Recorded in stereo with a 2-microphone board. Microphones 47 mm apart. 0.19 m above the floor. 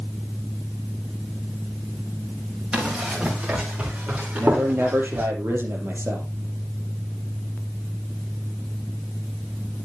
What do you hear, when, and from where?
2.7 s running footsteps: 20° right (ahead or behind), 9.5 m; by 5.3 s 30° right (ahead or behind), 9.5 m
4.4 s a man speaking: 50° right (ahead or behind), 4.5 m